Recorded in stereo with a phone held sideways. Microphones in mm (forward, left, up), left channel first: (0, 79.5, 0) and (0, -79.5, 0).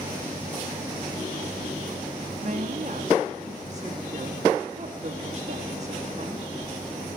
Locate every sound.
2.4 s a woman speaking: 50° right (ahead or behind), 2 m